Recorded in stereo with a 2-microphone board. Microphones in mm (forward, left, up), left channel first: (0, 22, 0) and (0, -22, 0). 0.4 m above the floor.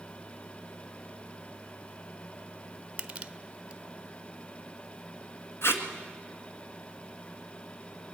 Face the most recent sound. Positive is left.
turn(degrees=80)